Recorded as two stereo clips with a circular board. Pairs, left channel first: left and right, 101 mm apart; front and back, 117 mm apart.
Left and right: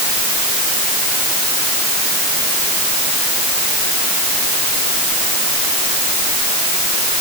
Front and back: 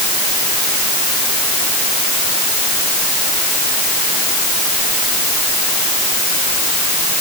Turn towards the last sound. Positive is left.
No sound to turn to.